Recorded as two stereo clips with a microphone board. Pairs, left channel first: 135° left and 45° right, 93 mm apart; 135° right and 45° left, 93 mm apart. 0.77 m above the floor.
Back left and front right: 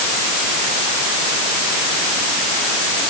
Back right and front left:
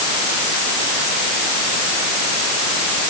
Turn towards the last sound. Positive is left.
No sound to turn to.